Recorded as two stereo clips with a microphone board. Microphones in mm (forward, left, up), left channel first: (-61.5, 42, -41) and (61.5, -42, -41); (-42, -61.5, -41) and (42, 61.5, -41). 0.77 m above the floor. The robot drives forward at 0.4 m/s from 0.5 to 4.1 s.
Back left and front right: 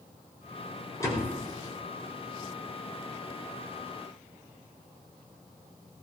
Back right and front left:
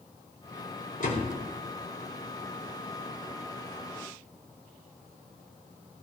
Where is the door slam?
145° right, 5.5 m.